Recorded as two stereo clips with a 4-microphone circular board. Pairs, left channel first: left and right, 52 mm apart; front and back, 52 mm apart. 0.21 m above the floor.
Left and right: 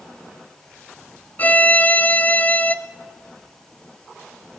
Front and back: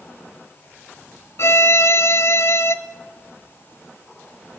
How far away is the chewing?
I don't hear chewing.